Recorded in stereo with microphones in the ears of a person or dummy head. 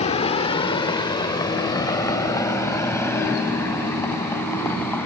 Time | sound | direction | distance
0.0 | a vehicle | 35° left (ahead or behind) | ?